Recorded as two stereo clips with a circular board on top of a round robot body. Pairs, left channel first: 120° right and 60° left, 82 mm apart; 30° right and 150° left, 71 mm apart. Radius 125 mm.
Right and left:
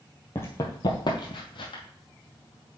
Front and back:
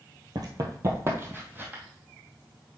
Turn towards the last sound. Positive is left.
turn(degrees=-145)